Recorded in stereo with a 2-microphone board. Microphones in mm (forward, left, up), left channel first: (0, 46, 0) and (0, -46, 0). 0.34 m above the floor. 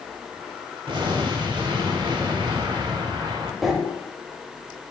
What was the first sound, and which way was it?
An explosion, 60° right (ahead or behind).